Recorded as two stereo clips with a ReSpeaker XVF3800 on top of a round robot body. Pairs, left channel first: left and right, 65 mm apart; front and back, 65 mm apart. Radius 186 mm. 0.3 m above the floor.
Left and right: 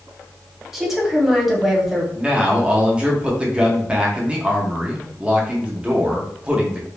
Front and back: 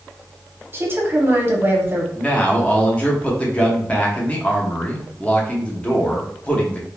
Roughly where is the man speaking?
Ahead right.